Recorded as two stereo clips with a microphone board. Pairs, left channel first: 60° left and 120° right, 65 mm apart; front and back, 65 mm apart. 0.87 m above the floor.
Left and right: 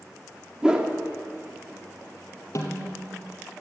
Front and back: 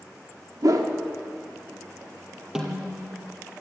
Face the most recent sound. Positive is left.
turn(degrees=100)